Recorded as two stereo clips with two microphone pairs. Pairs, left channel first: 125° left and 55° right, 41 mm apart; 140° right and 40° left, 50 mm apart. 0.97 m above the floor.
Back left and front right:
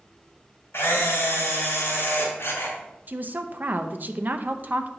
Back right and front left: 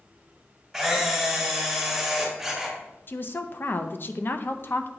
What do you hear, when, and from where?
0.7 s a camera shutter: 135° left, 3 m
3.1 s a woman speaking: 100° right, 0.5 m